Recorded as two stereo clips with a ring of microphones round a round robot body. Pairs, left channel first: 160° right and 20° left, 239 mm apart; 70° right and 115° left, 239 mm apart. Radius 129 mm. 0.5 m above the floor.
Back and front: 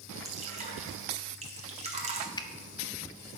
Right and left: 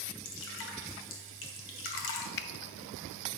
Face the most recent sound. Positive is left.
turn(degrees=-90)